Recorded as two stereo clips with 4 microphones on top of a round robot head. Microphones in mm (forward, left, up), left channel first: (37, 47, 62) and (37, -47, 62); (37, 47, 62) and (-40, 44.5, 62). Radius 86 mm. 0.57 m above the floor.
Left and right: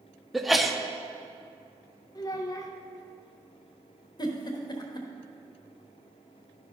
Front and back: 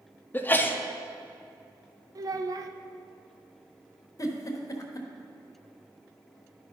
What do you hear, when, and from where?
0.3 s a sneeze: straight ahead, 0.8 m
2.1 s a child speaking: 145° left, 0.8 m
4.2 s a giggle: 45° left, 1.1 m